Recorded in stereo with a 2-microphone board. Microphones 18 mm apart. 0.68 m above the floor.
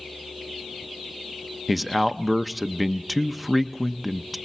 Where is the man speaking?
5° right (ahead or behind), 0.6 m.